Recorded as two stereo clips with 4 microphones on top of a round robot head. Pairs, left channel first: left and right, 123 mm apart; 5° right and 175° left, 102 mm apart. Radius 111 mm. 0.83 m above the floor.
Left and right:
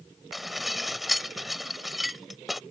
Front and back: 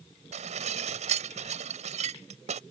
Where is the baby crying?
I don't hear a baby crying.